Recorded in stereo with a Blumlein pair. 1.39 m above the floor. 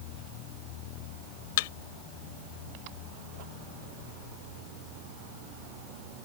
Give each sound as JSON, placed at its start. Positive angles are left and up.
{"t": 1.6, "sound": "a thud", "azimuth_deg": 50}